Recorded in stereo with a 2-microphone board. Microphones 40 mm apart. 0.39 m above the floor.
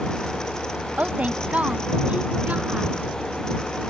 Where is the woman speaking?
35° right (ahead or behind).